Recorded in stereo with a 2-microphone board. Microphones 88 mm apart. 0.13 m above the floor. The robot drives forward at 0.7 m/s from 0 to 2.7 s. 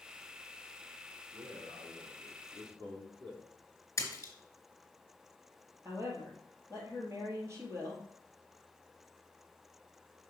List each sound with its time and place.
1.3 s a man speaking: 65° right (ahead or behind), 3 m; by 3.4 s 55° right (ahead or behind), 3 m
4.0 s a splash: 35° left (ahead or behind), 2 m
5.8 s a woman speaking: 35° right (ahead or behind), 2.5 m